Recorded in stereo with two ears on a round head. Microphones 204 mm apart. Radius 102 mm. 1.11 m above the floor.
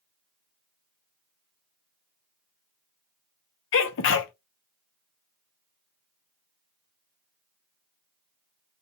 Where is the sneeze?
55° left (ahead or behind), 0.5 m.